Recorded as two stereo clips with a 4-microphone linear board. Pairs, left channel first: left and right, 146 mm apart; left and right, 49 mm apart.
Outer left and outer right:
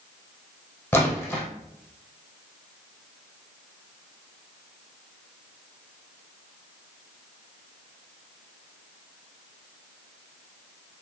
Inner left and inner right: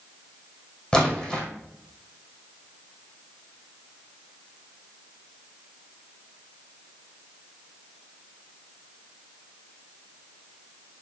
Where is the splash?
15° left (ahead or behind), 2.5 m.